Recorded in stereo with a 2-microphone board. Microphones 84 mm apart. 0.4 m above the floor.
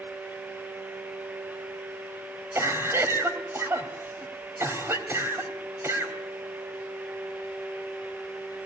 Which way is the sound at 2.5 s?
30° right (ahead or behind).